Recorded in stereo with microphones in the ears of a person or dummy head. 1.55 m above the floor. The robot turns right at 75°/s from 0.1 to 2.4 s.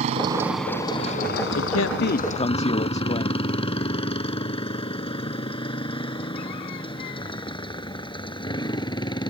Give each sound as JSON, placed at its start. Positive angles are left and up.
{"t": 0.0, "sound": "a motorcycle", "side_deg": -30}
{"t": 1.6, "sound": "a man speaking", "azimuth_deg": 85}